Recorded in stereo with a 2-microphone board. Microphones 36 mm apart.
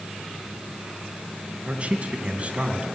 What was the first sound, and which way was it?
A man speaking, 35° right (ahead or behind).